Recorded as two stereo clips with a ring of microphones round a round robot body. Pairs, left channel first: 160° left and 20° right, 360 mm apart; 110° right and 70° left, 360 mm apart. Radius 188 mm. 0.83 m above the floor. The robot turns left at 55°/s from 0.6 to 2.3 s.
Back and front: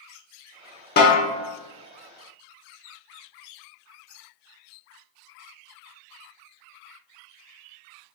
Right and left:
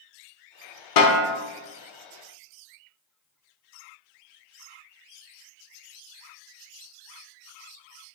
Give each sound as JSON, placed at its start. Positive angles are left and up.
{"t": 1.0, "sound": "a snare drum", "azimuth_deg": -140, "distance_m": 0.9}